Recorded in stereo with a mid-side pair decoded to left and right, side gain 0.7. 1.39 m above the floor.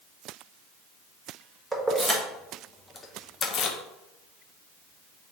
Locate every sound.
1.7 s keys jangling: 10° right, 1.5 m; by 3.8 s 55° left, 0.7 m